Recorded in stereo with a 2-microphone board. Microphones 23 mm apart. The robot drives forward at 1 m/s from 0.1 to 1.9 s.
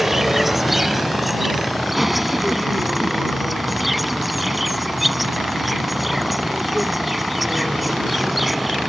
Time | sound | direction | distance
0.0 | an insect | 15° right (ahead or behind) | ?